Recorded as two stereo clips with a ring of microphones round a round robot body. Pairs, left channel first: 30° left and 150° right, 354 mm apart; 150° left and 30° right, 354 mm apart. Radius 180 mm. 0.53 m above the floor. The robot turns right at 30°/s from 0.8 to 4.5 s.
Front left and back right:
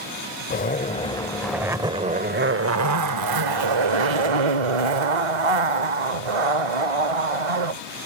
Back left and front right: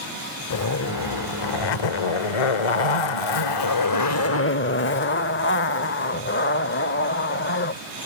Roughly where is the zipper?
Left.